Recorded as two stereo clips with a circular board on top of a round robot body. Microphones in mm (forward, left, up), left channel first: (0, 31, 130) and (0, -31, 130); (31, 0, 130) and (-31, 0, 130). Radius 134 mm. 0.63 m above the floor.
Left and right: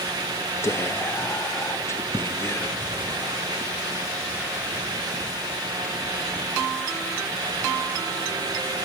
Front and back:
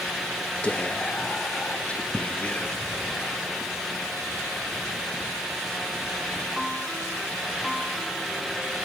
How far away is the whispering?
About 0.7 m.